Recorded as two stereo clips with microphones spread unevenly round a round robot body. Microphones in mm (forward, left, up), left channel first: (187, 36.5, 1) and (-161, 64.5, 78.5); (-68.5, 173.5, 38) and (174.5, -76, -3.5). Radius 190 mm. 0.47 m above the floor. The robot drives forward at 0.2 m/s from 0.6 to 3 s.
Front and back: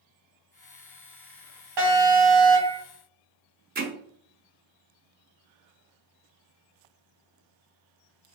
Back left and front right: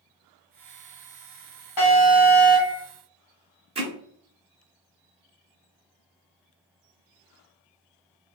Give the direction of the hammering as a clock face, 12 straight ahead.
4 o'clock.